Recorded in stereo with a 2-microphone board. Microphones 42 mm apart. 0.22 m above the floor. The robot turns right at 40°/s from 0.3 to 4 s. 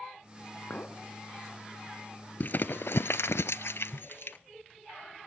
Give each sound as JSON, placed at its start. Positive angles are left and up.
{"t": 0.7, "sound": "a clink", "side_deg": 45, "distance_m": 1.9}
{"t": 2.4, "sound": "crumpling", "side_deg": 50, "distance_m": 0.5}